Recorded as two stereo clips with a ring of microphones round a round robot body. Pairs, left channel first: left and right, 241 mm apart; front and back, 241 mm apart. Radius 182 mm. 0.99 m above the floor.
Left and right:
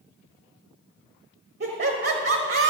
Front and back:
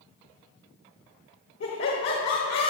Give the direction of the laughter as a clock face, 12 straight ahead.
2 o'clock.